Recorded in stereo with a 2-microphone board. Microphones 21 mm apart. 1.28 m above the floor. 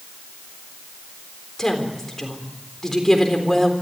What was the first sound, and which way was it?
A woman speaking, 20° left (ahead or behind).